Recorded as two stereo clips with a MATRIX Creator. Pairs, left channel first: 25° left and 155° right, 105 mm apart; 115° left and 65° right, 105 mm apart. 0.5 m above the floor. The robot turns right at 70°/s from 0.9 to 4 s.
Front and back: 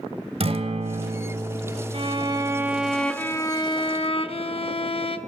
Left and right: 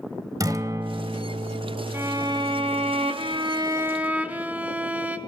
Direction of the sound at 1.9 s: 135° right.